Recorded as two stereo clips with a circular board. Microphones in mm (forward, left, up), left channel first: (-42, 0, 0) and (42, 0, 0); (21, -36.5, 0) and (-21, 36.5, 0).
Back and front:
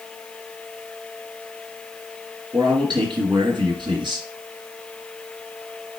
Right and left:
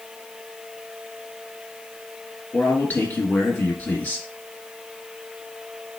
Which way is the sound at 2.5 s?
10° left.